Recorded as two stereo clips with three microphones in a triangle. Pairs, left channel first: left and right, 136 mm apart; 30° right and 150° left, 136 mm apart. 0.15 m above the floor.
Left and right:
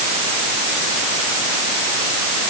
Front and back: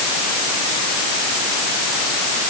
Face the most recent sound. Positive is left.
No sound to turn to.